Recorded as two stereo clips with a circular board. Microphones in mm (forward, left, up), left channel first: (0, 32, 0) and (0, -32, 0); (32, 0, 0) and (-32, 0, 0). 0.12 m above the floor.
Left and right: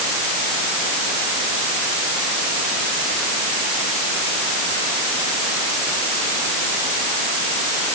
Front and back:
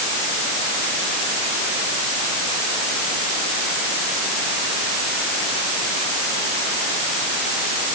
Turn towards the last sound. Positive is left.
No sound to turn to.